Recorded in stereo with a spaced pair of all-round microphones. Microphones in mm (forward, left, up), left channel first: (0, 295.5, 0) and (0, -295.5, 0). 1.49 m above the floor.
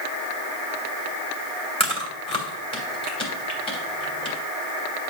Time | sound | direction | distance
1.8 | chewing | 10° left (ahead or behind) | 2.5 m